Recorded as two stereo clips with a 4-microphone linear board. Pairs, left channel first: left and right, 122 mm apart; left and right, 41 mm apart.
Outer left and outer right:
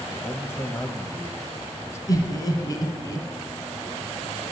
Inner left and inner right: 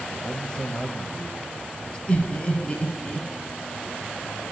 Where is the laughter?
35° left (ahead or behind), 1.6 m.